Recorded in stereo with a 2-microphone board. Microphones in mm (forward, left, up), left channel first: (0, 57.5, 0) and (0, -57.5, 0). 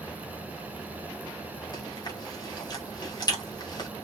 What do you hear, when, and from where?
1.7 s chewing: 40° left (ahead or behind), 1.8 m